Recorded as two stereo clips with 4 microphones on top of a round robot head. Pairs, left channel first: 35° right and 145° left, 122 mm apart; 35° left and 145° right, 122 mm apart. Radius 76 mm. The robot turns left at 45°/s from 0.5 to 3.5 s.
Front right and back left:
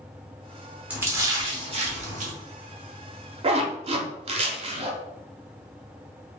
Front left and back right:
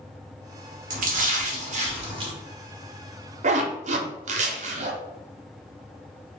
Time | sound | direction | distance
0.9 | a splash | 135° right | 0.8 m
3.4 | a zipper | 170° right | 0.6 m